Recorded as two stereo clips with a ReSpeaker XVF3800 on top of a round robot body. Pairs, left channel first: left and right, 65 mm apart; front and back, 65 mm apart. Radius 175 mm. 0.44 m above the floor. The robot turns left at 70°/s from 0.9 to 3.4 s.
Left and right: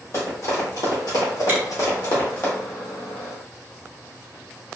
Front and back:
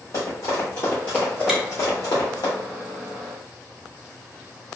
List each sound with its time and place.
0.1 s running footsteps: 45° left, 1.2 m; by 2.5 s 25° left, 1.1 m
1.5 s chewing: 110° right, 1.3 m; by 1.6 s 115° right, 1.3 m